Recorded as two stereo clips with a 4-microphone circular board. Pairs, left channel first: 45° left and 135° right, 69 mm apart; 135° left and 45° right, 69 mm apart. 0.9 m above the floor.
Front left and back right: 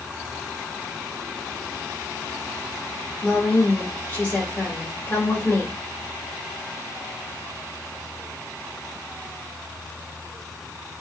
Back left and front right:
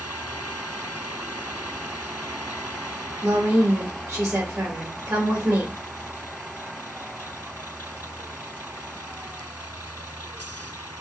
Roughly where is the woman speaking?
Ahead.